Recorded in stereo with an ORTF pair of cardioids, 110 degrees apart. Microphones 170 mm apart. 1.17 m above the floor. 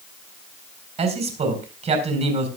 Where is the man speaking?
40° right, 4.5 m.